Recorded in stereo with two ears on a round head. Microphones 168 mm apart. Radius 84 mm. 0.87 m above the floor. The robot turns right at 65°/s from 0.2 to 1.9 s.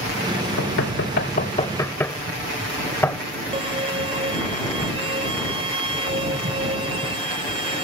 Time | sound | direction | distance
0.6 | knocking | 85° left | ?
3.5 | a violin | 30° right (ahead or behind) | ?